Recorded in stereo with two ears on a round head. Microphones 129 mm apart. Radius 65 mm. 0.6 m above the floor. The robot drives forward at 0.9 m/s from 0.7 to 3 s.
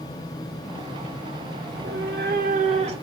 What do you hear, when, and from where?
1.7 s a cat meowing: 70° right (ahead or behind), 0.8 m; by 3.0 s 40° right (ahead or behind), 1.2 m